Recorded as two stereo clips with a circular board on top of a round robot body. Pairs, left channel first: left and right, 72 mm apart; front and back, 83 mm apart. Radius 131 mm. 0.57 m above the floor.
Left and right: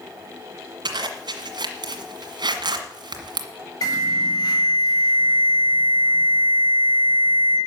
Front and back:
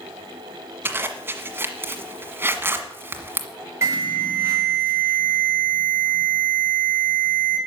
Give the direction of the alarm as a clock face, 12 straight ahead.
8 o'clock.